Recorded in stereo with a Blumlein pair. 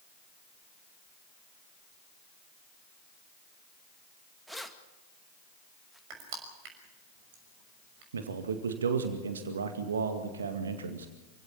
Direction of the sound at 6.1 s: 45° right.